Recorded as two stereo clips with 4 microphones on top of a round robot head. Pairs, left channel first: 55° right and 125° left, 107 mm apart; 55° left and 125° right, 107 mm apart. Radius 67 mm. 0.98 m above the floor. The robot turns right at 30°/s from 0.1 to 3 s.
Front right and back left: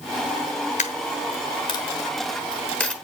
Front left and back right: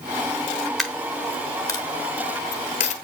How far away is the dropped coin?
About 1.1 m.